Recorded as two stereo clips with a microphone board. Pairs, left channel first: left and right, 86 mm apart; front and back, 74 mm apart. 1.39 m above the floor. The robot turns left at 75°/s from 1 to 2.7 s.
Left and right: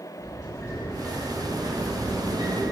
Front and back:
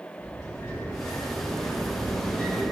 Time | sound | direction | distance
0.2 | a sliding door | 40° left | 1.3 m